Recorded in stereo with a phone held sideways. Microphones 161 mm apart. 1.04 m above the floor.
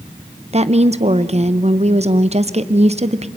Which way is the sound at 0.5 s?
40° right (ahead or behind).